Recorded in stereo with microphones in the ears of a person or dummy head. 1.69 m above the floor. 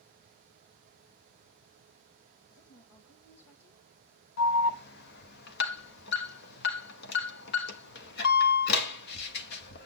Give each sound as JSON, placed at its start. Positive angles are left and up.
{"t": 2.5, "sound": "a woman speaking", "side_deg": 80, "distance_m": 1.9}
{"t": 4.4, "sound": "an alarm", "side_deg": 60, "distance_m": 1.3}